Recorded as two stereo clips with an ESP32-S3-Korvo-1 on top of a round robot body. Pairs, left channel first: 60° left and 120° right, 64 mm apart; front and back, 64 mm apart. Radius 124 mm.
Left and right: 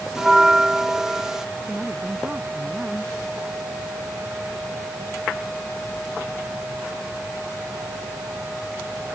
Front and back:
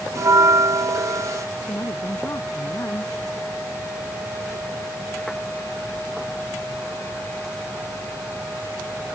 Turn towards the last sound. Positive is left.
turn(degrees=-45)